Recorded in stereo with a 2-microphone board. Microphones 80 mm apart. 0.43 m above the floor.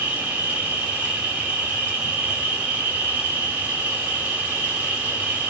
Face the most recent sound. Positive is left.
turn(degrees=-20)  # may be behind; listen again after turning